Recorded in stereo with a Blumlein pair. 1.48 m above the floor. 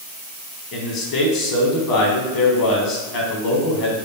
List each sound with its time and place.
0.7 s a man speaking: 40° left, 1.2 m